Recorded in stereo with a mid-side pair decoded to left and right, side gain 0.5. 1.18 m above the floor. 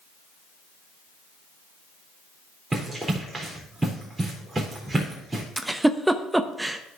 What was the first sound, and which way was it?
Running footsteps, 20° right.